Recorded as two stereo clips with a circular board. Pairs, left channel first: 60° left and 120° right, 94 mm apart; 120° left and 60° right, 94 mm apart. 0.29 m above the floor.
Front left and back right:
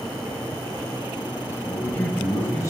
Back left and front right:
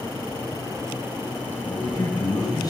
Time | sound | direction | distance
1.6 | a man speaking | 130° left | 1.4 m